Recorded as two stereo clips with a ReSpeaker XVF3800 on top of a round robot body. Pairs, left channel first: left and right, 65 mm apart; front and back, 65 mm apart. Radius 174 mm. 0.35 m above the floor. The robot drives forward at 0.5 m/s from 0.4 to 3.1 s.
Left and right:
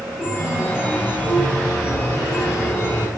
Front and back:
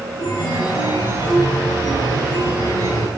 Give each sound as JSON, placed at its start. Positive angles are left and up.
{"t": 0.2, "sound": "a chime", "azimuth_deg": 25, "distance_m": 4.5}